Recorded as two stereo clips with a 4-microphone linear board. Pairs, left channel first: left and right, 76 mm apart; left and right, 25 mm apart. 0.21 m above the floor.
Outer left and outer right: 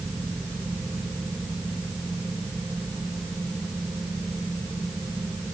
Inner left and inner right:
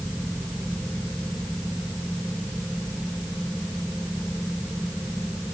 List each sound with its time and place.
Only background noise.